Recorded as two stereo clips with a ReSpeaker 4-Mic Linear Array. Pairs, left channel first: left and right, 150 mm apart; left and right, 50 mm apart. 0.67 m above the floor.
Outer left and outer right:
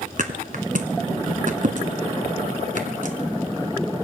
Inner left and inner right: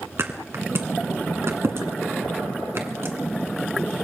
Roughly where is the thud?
Right.